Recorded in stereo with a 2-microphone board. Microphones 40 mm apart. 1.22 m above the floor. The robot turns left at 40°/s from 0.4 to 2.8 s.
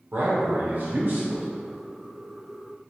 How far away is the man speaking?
About 0.7 m.